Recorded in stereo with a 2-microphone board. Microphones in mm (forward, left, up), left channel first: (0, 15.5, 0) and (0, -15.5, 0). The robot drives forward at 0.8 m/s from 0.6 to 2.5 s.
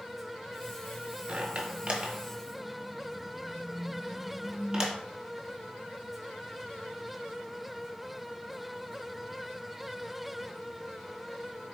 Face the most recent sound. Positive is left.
turn(degrees=-25)  # may be behind; listen again after turning